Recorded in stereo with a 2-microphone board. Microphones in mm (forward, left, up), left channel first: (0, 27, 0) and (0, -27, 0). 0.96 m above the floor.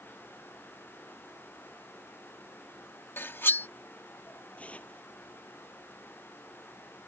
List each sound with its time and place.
3.2 s cutlery clinking: 45° left (ahead or behind)
4.6 s tearing paper: 25° left (ahead or behind)